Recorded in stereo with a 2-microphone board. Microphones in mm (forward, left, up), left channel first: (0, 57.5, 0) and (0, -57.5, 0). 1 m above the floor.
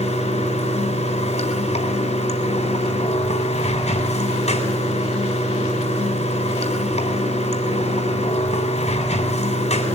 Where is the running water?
85° left, 4 m.